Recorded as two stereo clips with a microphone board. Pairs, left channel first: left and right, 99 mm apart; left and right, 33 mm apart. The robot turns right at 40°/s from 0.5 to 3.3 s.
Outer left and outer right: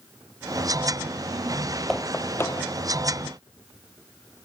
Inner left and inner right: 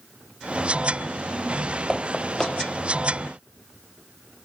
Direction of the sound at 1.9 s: 5° left (ahead or behind).